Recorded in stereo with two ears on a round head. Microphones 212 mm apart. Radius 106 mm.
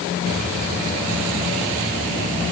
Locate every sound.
Only background noise.